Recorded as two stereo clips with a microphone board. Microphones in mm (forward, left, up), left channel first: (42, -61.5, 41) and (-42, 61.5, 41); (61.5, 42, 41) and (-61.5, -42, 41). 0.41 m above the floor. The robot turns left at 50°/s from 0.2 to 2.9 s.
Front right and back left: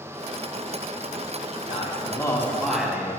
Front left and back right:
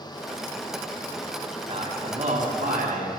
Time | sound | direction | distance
1.7 | a man speaking | 95° right | 3 m